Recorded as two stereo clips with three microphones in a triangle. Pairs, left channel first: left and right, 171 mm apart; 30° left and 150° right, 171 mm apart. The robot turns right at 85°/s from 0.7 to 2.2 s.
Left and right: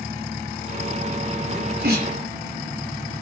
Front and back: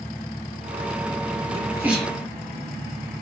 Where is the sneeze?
100° right, 3.5 m; by 2.2 s 45° right, 3.5 m.